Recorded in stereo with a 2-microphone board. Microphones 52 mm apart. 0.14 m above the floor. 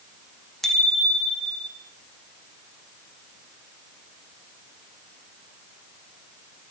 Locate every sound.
0.6 s a bicycle bell: 5° left (ahead or behind), 4.5 m; by 1.7 s 10° left (ahead or behind), 4 m